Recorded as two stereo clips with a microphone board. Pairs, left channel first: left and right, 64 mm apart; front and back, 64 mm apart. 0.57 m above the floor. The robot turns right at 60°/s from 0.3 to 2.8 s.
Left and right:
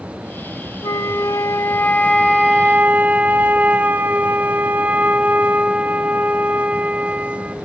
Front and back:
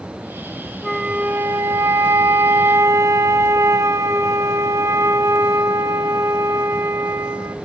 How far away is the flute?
About 0.7 m.